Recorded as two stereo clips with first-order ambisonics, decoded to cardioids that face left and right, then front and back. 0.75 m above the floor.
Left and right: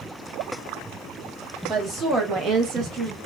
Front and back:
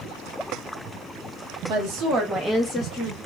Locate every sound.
1.7 s a woman speaking: 155° right, 1.2 m; by 3.2 s 45° right, 1.2 m